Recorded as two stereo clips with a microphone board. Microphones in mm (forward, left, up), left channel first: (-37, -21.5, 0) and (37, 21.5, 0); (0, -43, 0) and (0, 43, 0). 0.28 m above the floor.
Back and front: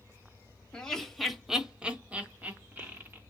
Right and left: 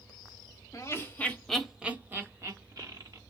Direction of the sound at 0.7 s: 75° right.